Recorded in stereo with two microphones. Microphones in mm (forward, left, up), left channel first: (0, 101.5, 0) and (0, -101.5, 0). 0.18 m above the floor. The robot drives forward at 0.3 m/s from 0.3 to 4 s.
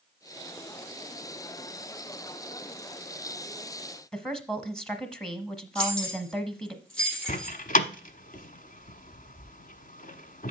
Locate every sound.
4.1 s a woman speaking: 5° left (ahead or behind), 1.0 m
5.8 s keys jangling: 5° left (ahead or behind), 4.5 m
7.3 s a door slam: 45° left (ahead or behind), 0.9 m